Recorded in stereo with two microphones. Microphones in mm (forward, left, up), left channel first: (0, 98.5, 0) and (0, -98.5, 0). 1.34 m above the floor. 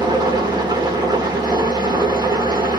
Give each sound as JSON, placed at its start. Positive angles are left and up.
{"t": 0.0, "sound": "an engine running", "side_deg": -20, "distance_m": 1.1}